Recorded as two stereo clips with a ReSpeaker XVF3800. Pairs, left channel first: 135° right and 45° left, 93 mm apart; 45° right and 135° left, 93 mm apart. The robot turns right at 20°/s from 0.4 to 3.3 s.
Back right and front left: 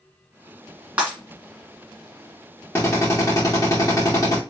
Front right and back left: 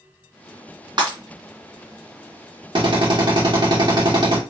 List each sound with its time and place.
1.0 s breaking glass: 115° left, 2 m; by 1.2 s 120° left, 2 m
2.8 s a drill: 160° left, 2.5 m; by 4.4 s 175° left, 2.5 m